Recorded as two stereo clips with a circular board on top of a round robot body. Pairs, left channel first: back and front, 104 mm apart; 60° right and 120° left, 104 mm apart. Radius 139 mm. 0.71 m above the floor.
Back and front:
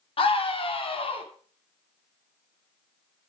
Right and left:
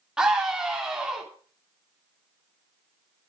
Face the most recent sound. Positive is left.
turn(degrees=-155)